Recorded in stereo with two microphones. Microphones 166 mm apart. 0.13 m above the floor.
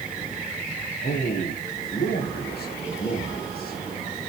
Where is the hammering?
I don't hear hammering.